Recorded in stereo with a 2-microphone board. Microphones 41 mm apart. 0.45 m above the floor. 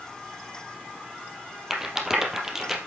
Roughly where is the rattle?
Centre.